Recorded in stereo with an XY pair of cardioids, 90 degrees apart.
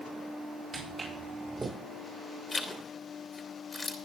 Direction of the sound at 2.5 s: 30° left.